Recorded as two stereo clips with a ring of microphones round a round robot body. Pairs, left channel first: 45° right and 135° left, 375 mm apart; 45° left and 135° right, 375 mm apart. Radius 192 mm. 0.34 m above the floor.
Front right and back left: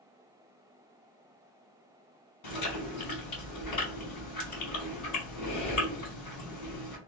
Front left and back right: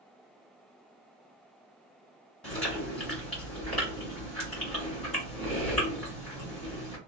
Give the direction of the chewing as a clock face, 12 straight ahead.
1 o'clock.